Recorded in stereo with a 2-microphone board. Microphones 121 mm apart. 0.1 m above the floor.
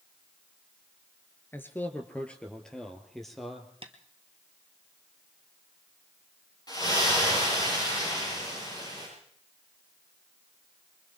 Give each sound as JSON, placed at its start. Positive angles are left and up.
{"t": 1.5, "sound": "a man speaking", "side_deg": 20, "distance_m": 2.0}
{"t": 3.8, "sound": "tapping", "side_deg": -50, "distance_m": 1.7}
{"t": 6.7, "sound": "a splash", "side_deg": 35, "distance_m": 10.0}